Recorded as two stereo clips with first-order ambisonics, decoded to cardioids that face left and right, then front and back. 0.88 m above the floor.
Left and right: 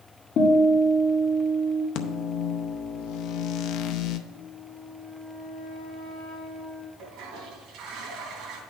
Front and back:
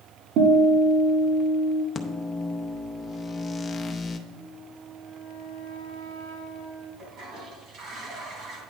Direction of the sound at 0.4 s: 140° left.